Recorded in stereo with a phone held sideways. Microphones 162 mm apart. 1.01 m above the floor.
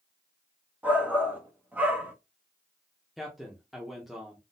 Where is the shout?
10° right (ahead or behind), 1.2 m.